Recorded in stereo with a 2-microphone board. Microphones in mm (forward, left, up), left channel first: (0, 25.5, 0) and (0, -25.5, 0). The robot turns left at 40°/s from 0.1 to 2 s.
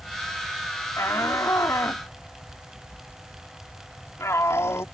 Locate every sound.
1.0 s a shout: 65° left (ahead or behind); by 4.8 s 70° left (ahead or behind)